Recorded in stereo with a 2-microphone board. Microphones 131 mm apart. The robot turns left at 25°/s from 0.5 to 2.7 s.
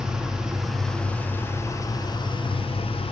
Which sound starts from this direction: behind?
An engine running, at 0.0 s.